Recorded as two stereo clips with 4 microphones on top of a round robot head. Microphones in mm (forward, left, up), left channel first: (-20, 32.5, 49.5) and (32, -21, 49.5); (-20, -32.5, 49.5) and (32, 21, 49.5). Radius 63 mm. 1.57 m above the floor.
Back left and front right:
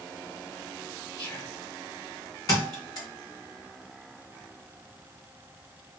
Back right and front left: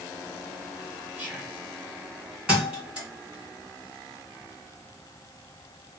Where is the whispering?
120° left, 2 m.